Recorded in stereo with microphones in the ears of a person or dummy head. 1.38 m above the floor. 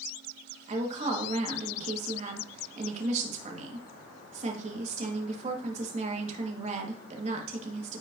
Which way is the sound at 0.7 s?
35° right (ahead or behind).